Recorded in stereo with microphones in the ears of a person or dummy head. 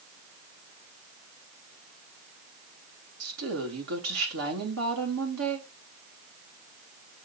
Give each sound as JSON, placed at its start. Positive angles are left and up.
{"t": 3.2, "sound": "a woman speaking", "side_deg": -90, "distance_m": 3.0}